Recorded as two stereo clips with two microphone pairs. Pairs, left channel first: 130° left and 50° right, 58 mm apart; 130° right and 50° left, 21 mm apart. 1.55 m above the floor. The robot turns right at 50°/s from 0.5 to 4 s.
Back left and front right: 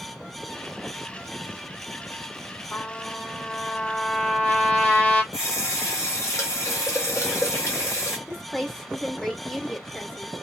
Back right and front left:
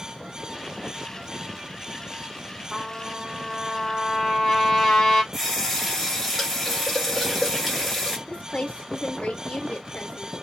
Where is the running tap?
140° left, 1.2 m.